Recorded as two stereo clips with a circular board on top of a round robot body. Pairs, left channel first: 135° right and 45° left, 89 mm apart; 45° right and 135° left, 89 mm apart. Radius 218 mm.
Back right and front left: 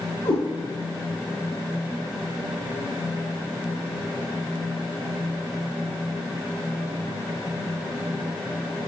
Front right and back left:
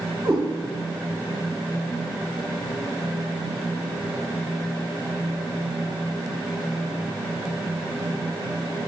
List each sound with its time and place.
0.2 s a cat meowing: 140° right, 0.8 m